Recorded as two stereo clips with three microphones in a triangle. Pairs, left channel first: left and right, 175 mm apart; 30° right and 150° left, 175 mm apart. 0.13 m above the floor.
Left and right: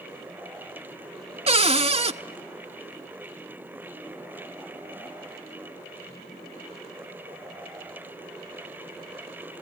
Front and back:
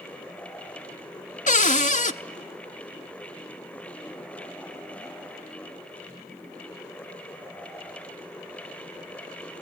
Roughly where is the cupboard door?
Ahead right.